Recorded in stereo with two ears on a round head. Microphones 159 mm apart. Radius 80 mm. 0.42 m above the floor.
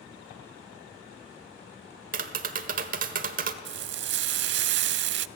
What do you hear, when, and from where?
2.1 s tapping: 50° right (ahead or behind), 1.3 m
3.6 s frying: 70° right (ahead or behind), 0.6 m